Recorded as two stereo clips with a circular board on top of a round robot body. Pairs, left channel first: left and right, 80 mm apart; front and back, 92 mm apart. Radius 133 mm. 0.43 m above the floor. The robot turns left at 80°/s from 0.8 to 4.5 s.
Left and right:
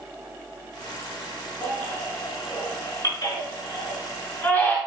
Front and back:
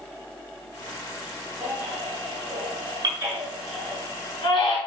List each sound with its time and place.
1.6 s a baby crying: 110° right, 4.5 m; by 4.8 s 15° left, 4.5 m